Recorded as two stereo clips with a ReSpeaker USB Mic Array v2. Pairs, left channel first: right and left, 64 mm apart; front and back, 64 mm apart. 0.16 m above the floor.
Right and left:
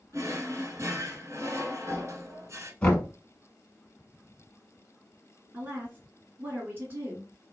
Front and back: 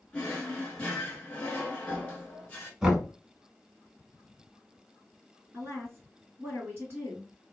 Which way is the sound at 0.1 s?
65° left.